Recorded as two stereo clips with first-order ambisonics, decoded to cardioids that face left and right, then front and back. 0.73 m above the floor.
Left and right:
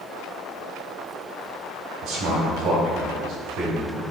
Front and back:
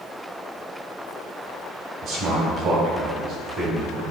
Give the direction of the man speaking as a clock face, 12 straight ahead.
5 o'clock.